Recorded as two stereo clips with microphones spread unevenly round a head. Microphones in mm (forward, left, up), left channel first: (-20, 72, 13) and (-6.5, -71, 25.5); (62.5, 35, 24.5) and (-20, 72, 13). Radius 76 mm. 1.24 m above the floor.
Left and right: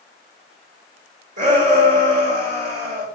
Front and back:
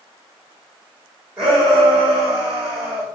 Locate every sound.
1.4 s a shout: 115° right, 4 m